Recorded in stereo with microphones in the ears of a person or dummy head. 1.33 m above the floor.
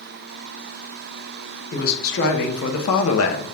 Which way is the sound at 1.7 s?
55° left (ahead or behind).